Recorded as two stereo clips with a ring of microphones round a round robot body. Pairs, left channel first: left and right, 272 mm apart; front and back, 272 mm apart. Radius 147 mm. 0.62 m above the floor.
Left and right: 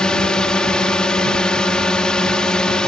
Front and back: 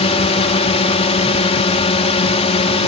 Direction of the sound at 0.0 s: 10° left.